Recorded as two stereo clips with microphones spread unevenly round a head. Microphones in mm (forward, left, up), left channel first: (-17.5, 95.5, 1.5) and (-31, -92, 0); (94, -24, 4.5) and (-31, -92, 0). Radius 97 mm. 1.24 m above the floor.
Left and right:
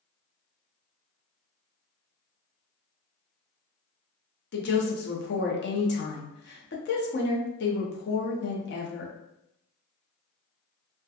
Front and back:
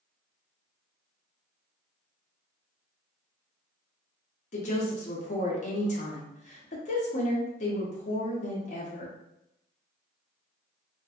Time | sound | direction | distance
4.5 | a woman speaking | 65° left | 0.6 m